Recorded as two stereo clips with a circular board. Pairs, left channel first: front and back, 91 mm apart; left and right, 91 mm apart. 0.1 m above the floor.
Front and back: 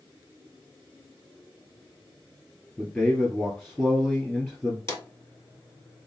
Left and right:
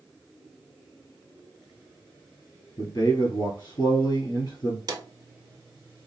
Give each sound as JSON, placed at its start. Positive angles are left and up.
{"t": 2.8, "sound": "a man speaking", "azimuth_deg": 70, "distance_m": 2.0}
{"t": 4.9, "sound": "a drawer", "azimuth_deg": -50, "distance_m": 1.7}